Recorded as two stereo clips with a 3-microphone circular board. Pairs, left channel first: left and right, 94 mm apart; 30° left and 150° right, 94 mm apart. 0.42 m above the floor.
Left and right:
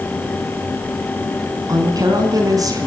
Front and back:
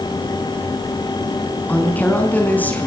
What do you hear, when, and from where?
1.7 s a woman speaking: 40° right, 4.5 m